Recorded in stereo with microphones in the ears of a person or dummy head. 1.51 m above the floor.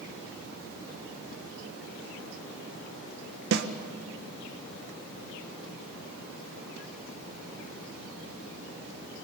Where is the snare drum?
60° right (ahead or behind), 1.6 m.